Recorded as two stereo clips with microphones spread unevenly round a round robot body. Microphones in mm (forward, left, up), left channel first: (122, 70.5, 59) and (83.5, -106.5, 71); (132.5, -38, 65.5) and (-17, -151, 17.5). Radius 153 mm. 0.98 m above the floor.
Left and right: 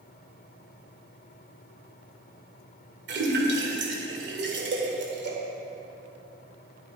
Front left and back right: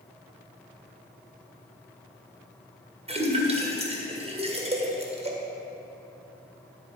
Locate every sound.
3.1 s a splash: 85° right, 2.0 m